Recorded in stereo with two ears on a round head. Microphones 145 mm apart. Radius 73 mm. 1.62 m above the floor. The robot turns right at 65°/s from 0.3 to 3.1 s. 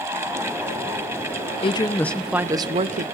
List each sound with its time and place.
1.6 s a woman speaking: 140° left, 0.7 m; by 3.0 s 125° right, 0.7 m